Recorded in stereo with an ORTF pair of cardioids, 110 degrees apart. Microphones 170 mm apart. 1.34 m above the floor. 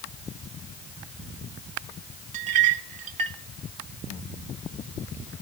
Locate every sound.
2.3 s a clink: 45° right, 1.5 m